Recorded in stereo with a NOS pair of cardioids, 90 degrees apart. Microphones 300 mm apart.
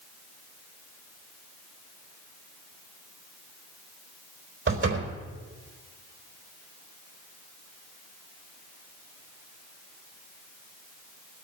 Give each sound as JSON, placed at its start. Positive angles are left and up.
{"t": 4.7, "sound": "a door slam", "azimuth_deg": -40, "distance_m": 4.0}